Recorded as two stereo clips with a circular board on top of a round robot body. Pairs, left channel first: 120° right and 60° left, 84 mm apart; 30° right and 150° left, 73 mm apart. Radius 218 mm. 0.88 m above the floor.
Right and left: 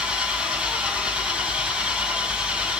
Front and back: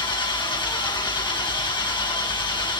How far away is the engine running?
About 2.5 m.